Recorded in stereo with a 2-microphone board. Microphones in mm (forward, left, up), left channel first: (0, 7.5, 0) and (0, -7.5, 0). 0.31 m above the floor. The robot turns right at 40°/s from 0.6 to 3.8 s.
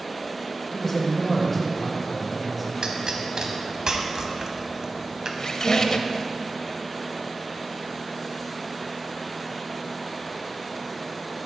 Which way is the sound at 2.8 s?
65° right (ahead or behind).